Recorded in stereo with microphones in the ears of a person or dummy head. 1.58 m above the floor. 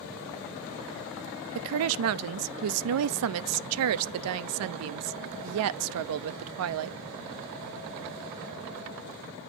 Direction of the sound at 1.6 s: 75° right (ahead or behind).